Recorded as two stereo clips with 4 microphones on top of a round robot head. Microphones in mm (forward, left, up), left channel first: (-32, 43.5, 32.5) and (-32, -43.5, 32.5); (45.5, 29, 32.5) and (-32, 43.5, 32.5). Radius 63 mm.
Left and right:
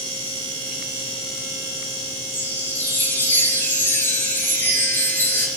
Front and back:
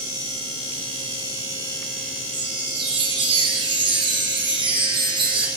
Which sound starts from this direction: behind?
A chime, at 2.3 s.